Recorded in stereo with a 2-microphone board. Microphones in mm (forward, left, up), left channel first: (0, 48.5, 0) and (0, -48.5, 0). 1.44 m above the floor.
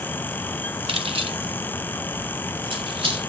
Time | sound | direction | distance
0.9 | keys jangling | 70° right (ahead or behind) | 1.5 m